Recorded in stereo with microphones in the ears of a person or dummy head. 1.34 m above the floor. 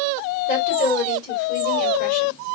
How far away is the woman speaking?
About 2.5 m.